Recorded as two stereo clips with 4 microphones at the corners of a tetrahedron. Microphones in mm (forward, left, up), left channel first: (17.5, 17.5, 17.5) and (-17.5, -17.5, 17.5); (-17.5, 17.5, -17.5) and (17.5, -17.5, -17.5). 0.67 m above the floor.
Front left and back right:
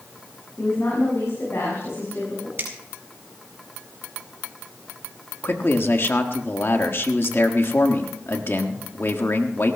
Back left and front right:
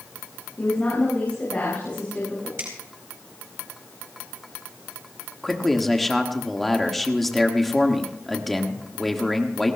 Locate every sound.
0.6 s a woman speaking: 75° left, 6.5 m
2.6 s a finger snap: 90° right, 4.5 m
5.4 s a man speaking: 45° left, 1.3 m